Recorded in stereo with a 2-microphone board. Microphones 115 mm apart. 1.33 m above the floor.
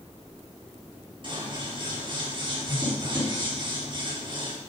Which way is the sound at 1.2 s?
45° right (ahead or behind).